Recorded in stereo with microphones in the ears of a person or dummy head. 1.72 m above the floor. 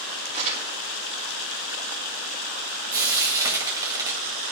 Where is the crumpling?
40° right (ahead or behind), 3 m.